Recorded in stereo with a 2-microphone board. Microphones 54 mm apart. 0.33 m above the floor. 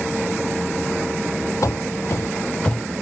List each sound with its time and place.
1.6 s running footsteps: 70° left (ahead or behind), 0.7 m; by 2.8 s 20° left (ahead or behind), 0.6 m